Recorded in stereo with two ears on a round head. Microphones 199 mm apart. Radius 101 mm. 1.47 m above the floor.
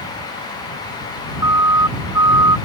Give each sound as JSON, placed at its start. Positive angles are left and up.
{"t": 1.4, "sound": "a siren", "side_deg": -15}